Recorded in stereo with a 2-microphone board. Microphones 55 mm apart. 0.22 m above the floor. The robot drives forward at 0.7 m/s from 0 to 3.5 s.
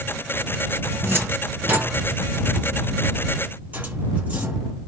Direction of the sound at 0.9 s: 40° right (ahead or behind).